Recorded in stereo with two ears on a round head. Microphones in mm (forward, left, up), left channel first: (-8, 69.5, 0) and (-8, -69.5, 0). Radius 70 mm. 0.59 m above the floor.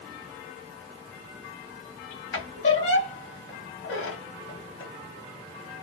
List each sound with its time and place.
2.3 s a squeak: 90° left, 1.2 m